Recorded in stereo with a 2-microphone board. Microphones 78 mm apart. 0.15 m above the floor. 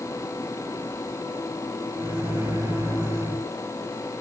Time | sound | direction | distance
2.0 | a microwave | 30° right (ahead or behind) | 1.3 m